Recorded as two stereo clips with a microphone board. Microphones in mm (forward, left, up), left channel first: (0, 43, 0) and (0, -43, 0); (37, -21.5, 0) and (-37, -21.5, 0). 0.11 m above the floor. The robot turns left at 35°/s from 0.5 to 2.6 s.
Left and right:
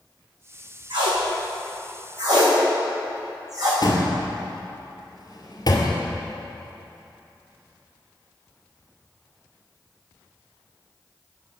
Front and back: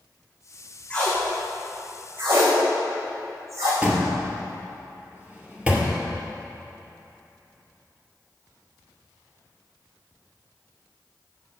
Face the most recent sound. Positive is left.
turn(degrees=110)